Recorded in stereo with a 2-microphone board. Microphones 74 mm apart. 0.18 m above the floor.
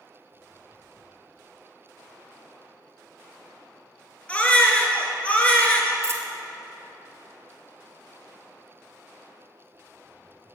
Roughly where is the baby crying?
Centre.